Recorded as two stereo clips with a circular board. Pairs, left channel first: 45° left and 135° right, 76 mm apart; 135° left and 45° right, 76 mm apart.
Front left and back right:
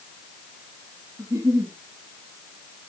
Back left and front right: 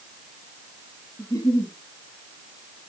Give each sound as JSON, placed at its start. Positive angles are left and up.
{"t": 1.2, "sound": "a giggle", "azimuth_deg": 175, "distance_m": 6.5}